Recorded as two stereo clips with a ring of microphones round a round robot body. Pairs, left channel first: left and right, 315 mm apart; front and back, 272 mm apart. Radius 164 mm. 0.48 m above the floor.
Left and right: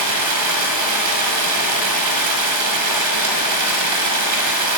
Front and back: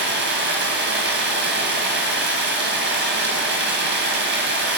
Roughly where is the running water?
Behind right.